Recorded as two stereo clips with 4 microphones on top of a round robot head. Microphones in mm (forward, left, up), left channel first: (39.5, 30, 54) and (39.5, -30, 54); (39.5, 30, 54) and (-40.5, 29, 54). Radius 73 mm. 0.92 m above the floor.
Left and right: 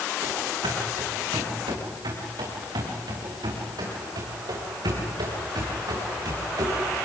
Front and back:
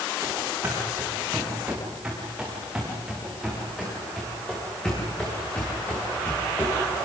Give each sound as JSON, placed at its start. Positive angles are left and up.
{"t": 0.2, "sound": "running footsteps", "azimuth_deg": -110, "distance_m": 6.0}